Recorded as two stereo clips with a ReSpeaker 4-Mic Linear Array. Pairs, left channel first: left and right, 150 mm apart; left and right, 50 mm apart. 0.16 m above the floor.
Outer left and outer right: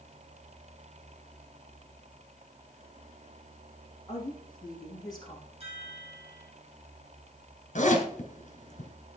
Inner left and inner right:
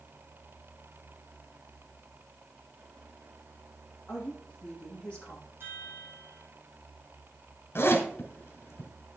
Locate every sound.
4.1 s a woman speaking: 25° left (ahead or behind), 5.5 m
5.6 s a chime: 45° right (ahead or behind), 6.5 m
7.8 s a zipper: 55° left (ahead or behind), 3 m